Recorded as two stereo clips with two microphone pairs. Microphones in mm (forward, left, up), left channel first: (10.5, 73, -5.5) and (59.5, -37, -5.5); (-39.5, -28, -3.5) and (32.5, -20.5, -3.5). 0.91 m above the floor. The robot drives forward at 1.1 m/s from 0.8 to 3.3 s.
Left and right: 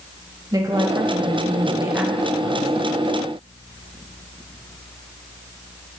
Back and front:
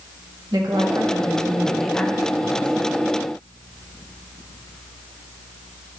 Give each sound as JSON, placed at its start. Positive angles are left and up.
{"t": 0.5, "sound": "a woman speaking", "azimuth_deg": -10, "distance_m": 1.3}